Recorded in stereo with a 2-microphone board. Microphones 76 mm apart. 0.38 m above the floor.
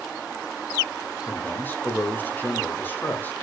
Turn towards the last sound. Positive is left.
turn(degrees=25)  # may be behind; listen again after turning